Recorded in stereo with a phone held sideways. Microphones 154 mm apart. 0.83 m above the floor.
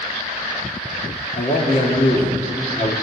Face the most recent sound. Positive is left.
turn(degrees=60)  # may be behind; listen again after turning